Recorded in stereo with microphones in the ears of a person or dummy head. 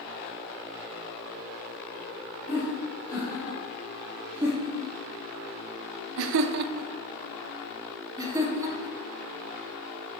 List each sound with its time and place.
2.5 s laughter: 5° right (ahead or behind), 3 m; by 9.0 s 15° right (ahead or behind), 2 m